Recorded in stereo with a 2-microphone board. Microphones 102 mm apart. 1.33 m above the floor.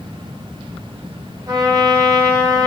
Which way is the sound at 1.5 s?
40° right (ahead or behind).